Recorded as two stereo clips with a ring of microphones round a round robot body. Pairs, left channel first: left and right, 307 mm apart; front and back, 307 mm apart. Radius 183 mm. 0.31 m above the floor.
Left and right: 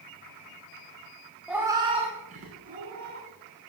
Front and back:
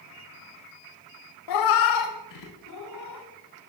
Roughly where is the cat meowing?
Ahead.